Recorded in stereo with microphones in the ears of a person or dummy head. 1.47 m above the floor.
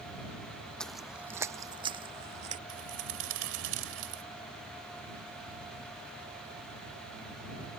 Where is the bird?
75° right (ahead or behind).